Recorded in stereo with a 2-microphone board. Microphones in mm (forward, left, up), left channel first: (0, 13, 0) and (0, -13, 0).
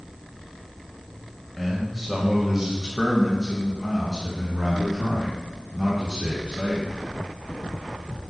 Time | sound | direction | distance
1.6 | a man speaking | 5° left (ahead or behind) | 1.2 m